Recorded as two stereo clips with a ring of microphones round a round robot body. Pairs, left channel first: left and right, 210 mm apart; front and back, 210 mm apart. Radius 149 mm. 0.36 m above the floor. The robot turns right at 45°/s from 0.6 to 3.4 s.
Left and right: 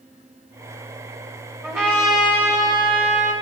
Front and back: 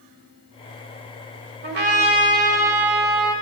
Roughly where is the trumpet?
Behind.